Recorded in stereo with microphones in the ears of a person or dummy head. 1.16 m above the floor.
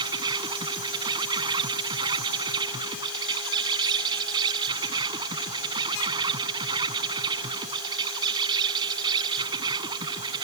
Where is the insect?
25° right (ahead or behind).